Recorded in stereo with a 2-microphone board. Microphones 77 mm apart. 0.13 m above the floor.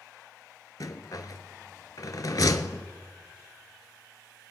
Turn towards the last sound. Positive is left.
turn(degrees=60)  # may be behind; listen again after turning